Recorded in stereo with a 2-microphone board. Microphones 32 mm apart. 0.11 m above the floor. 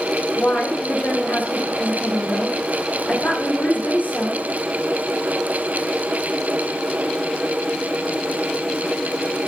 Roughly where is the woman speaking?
Left.